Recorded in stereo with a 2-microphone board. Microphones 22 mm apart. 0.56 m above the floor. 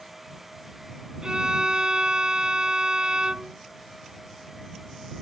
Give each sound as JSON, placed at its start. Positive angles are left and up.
{"t": 1.2, "sound": "a violin", "side_deg": -40}